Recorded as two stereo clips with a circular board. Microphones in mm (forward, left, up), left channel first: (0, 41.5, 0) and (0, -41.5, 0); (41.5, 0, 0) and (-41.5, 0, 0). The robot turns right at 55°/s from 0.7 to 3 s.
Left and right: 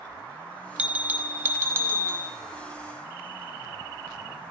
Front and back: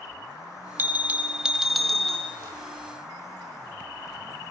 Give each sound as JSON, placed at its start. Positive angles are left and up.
{"t": 0.8, "sound": "a bell", "azimuth_deg": -145, "distance_m": 1.0}